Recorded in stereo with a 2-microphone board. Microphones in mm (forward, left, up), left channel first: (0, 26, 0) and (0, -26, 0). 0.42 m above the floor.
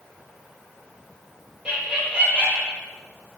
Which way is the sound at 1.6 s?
20° right (ahead or behind).